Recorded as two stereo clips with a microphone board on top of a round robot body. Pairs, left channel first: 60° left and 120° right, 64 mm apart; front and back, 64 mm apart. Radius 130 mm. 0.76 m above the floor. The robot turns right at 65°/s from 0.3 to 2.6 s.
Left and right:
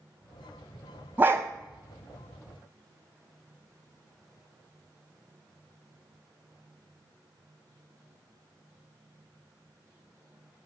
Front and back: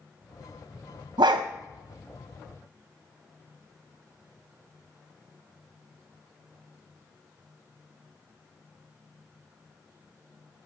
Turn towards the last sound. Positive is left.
turn(degrees=-95)